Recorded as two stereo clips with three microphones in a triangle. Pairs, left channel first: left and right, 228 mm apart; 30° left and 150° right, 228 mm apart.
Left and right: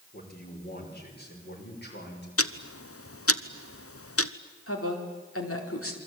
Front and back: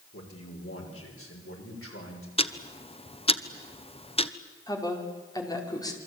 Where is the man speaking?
40° left, 6 m; by 2.3 s 50° left, 7 m.